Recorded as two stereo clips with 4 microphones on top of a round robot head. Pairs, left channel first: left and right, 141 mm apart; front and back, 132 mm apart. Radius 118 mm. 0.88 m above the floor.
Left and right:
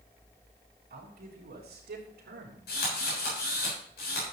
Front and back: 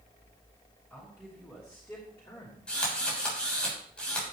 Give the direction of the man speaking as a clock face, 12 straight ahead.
3 o'clock.